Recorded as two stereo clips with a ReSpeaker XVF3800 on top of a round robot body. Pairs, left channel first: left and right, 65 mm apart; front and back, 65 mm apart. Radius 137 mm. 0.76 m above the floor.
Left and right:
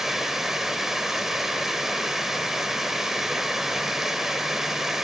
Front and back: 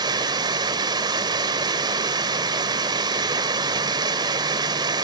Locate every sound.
0.0 s running water: 175° right, 1.0 m